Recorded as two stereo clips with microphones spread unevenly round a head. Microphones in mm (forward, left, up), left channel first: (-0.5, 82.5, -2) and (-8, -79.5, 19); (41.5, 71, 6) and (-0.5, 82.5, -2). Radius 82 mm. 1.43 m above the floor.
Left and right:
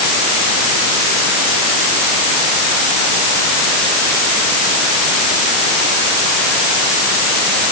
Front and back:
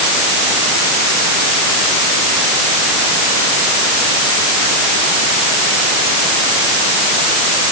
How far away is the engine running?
I don't hear an engine running.